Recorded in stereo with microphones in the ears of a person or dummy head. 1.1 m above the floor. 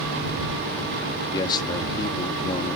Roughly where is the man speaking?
Left.